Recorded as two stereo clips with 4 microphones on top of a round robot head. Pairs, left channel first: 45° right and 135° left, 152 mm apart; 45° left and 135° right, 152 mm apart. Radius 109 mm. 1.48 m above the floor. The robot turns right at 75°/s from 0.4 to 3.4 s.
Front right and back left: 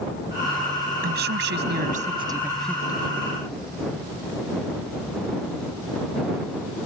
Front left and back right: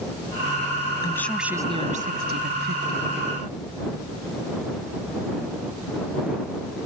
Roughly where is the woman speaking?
Left.